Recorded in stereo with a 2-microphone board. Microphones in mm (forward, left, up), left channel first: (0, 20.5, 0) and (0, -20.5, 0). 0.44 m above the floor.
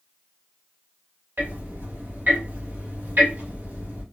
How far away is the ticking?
About 1.6 m.